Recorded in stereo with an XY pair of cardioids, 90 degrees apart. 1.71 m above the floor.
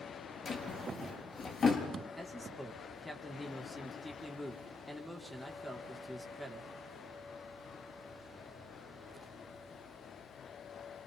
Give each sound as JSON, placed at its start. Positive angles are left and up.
{"t": 0.5, "sound": "a drawer", "azimuth_deg": 45, "distance_m": 7.5}
{"t": 2.2, "sound": "a man speaking", "azimuth_deg": 0, "distance_m": 5.0}